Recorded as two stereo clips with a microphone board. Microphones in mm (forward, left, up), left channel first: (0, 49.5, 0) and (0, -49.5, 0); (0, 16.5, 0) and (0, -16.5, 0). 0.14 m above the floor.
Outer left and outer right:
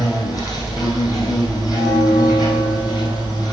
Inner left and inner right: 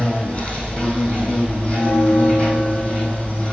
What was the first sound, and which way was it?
An insect, 40° left (ahead or behind).